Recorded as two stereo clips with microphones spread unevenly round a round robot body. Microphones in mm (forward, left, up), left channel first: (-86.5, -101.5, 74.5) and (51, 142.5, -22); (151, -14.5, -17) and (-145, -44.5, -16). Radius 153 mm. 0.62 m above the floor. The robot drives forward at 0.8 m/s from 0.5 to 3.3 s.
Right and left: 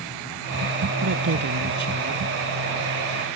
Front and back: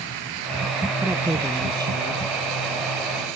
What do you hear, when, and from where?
1.0 s a man speaking: 100° left; by 2.2 s 110° left